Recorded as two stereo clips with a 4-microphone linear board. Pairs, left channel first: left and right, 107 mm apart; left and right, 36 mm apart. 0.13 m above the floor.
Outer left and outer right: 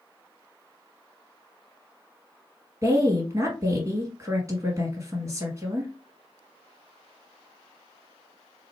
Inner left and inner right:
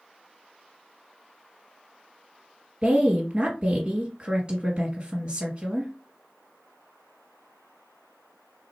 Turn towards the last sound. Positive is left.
turn(degrees=-30)  # may be behind; listen again after turning